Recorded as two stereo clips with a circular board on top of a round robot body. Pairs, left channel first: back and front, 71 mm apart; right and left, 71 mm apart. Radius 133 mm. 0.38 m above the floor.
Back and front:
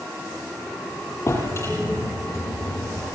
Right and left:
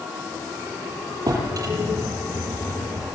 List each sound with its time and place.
1.3 s a drawer: 130° left, 8 m